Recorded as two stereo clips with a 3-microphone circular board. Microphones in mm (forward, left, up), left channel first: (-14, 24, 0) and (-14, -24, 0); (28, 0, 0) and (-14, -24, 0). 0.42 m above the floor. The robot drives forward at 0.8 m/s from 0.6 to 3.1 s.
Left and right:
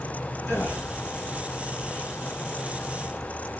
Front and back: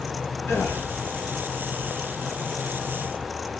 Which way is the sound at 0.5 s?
50° left.